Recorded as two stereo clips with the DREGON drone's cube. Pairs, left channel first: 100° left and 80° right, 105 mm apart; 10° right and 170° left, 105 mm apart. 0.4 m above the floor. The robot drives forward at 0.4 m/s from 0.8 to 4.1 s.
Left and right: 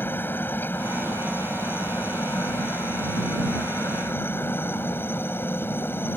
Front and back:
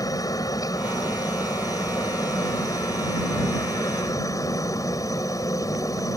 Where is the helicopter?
35° left.